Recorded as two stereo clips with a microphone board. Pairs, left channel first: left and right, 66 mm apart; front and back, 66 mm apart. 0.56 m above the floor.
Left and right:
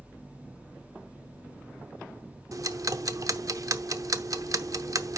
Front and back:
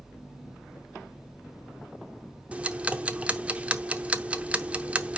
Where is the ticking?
110° right, 0.6 m.